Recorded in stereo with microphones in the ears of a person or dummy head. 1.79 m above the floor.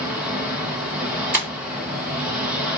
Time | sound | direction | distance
0.0 | an engine running | 10° right (ahead or behind) | 1.0 m
1.3 | breaking glass | 10° right (ahead or behind) | 2 m